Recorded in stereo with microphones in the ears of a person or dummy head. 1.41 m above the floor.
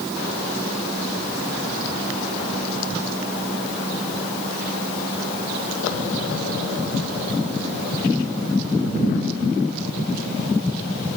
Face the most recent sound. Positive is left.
No sound to turn to.